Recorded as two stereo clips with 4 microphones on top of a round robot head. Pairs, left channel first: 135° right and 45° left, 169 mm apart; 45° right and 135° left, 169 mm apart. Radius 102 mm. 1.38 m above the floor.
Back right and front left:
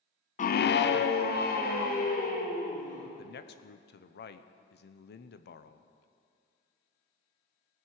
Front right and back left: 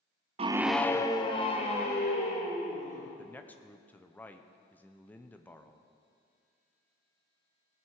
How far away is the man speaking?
About 0.8 m.